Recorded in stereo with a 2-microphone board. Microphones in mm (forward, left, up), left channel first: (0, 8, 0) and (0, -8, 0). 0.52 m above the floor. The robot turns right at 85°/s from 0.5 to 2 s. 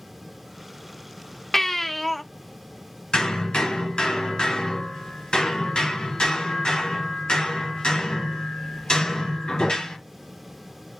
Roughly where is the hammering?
Left.